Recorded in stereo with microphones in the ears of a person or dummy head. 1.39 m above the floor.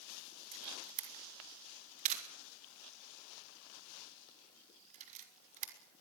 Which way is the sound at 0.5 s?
40° right (ahead or behind).